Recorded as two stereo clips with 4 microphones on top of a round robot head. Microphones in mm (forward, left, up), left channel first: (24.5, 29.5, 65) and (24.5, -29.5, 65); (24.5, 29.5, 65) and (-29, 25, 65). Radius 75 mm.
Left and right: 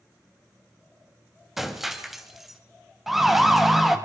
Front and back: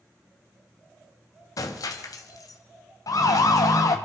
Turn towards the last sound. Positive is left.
turn(degrees=-5)